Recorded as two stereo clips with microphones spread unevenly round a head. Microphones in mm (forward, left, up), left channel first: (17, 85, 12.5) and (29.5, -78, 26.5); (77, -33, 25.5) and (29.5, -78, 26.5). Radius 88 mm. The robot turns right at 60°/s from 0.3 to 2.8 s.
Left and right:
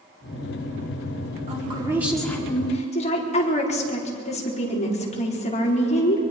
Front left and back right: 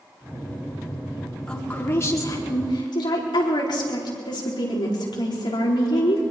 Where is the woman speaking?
35° right, 5 m; by 6.2 s 45° left, 5 m.